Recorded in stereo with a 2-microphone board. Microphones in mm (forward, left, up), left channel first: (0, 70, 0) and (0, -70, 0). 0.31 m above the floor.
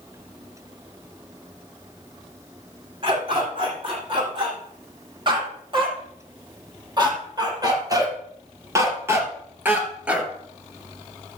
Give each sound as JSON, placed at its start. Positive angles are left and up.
{"t": 3.0, "sound": "a dog barking", "side_deg": -40, "distance_m": 6.0}